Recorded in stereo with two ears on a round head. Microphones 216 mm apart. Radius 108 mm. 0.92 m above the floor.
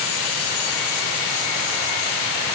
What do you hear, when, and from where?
Only background noise.